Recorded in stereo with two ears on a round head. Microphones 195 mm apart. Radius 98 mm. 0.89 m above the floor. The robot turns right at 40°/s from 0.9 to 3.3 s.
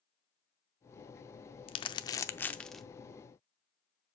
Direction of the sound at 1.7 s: 25° left (ahead or behind).